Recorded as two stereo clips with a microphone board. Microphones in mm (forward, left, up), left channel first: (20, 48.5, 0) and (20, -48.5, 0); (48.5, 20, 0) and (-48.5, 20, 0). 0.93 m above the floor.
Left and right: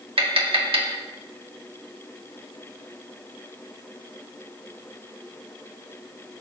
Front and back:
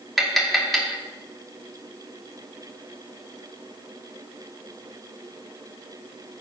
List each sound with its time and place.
0.2 s tapping: 90° right, 1.7 m